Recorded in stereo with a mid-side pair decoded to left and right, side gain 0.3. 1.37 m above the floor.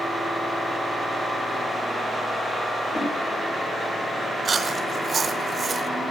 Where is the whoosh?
55° left, 6.5 m.